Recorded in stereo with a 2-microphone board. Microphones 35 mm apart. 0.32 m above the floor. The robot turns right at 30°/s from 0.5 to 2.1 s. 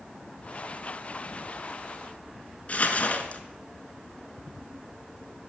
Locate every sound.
2.7 s crumpling: 45° left (ahead or behind), 0.9 m